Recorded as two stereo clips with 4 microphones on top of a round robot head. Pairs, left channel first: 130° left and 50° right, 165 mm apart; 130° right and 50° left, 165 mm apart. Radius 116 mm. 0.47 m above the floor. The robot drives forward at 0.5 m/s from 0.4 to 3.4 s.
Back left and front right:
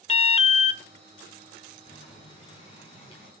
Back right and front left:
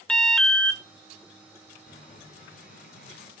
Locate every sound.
0.1 s an alarm: 145° left, 0.8 m; by 0.8 s 155° left, 0.9 m
1.9 s boiling: 170° right, 4.5 m